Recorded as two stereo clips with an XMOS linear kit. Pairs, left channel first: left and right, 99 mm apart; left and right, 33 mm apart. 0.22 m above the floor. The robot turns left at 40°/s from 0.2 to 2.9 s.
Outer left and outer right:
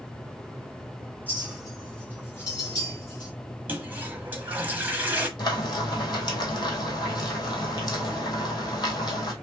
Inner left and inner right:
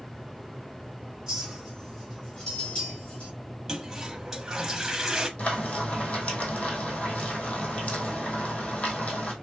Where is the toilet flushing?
20° right (ahead or behind), 1.2 m.